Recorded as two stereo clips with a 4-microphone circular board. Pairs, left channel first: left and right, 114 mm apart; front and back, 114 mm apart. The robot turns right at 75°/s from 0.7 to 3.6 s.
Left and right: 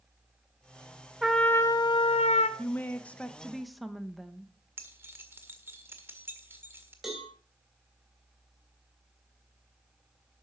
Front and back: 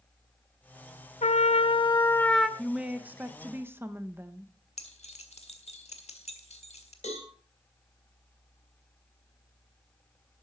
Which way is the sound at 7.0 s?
5° right.